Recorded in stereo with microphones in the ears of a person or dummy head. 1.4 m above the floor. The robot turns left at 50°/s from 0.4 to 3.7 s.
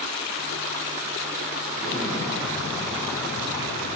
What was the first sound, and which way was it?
An explosion, 125° right.